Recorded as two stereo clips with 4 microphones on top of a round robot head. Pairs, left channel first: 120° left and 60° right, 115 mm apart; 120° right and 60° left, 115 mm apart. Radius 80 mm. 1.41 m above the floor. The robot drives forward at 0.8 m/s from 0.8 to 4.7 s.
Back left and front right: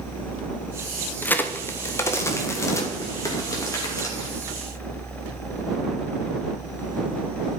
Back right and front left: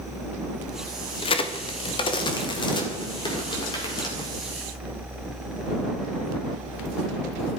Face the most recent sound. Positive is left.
turn(degrees=-175)